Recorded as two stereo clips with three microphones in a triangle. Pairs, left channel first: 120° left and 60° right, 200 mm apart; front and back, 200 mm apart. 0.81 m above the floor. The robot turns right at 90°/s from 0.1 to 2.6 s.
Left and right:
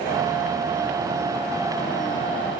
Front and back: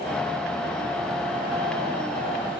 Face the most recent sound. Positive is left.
No sound to turn to.